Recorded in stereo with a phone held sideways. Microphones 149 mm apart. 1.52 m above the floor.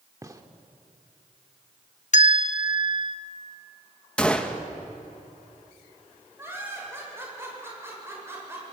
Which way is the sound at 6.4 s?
15° right (ahead or behind).